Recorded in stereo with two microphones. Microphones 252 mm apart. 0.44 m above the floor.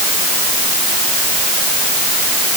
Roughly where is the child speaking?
I don't hear a child speaking.